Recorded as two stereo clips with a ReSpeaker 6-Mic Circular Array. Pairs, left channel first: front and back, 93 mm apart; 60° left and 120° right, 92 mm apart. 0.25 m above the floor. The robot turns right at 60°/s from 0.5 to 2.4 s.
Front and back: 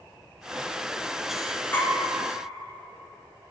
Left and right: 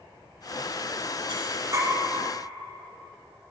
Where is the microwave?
I don't hear a microwave.